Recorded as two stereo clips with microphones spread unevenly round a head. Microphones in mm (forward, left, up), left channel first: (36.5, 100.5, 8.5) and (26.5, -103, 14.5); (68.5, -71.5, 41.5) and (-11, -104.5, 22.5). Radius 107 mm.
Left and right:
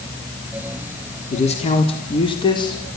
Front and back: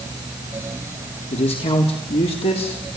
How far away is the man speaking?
About 3.5 m.